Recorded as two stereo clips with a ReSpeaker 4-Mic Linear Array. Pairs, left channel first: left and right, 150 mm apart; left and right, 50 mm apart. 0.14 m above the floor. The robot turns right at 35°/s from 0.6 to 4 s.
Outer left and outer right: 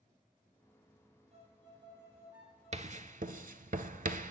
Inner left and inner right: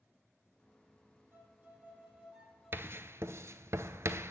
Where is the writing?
50° right (ahead or behind), 0.5 m; by 4.3 s 65° right (ahead or behind), 0.5 m.